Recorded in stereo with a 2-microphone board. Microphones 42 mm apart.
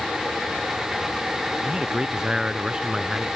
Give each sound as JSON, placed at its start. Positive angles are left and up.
{"t": 1.6, "sound": "a man speaking", "side_deg": -20}